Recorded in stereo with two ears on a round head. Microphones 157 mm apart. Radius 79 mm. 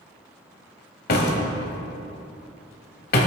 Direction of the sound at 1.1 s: 55° left (ahead or behind).